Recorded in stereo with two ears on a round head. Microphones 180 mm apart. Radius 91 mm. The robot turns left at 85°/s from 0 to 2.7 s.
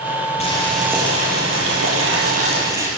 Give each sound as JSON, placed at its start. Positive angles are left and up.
{"t": 0.4, "sound": "boiling", "azimuth_deg": 30, "distance_m": 8.5}